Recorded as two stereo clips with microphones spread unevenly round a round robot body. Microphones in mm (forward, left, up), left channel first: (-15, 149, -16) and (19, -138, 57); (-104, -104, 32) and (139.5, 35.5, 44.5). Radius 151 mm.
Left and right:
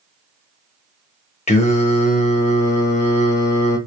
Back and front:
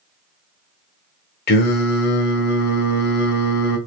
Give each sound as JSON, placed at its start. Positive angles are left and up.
{"t": 1.5, "sound": "singing", "azimuth_deg": 155, "distance_m": 0.7}